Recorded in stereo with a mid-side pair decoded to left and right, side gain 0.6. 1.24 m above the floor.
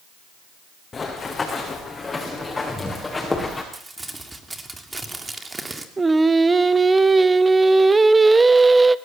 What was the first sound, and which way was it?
Running footsteps, 25° left.